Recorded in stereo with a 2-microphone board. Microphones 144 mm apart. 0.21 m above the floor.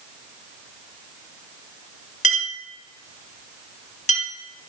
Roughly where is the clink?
Left.